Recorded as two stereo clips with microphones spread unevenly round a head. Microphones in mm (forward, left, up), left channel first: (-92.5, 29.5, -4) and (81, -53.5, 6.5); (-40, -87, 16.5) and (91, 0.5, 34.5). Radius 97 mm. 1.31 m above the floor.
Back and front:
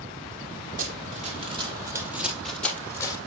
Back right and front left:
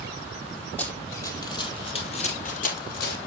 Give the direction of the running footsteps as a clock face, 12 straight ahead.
2 o'clock.